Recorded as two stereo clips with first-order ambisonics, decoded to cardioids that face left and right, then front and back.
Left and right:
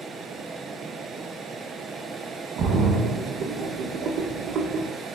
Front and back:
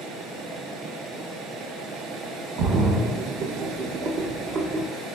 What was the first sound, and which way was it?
A splash, 135° right.